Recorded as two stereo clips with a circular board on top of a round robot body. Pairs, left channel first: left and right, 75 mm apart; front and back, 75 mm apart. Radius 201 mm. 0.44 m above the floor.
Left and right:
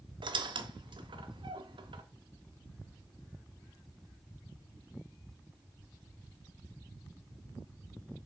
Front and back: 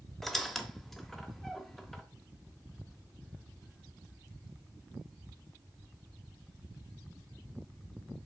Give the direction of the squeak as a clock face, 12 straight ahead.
3 o'clock.